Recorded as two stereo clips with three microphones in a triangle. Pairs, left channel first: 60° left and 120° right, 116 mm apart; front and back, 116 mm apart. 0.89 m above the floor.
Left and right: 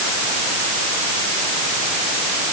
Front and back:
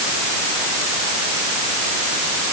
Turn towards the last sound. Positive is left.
No sound to turn to.